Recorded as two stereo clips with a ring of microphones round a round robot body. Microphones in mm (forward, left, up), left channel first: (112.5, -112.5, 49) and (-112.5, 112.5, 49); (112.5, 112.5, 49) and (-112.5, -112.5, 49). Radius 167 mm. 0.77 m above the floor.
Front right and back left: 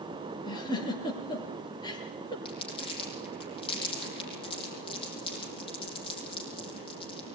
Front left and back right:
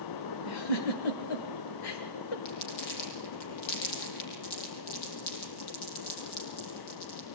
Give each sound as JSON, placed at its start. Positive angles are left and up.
{"t": 0.5, "sound": "a giggle", "azimuth_deg": 30, "distance_m": 3.0}
{"t": 2.5, "sound": "crumpling", "azimuth_deg": 30, "distance_m": 6.5}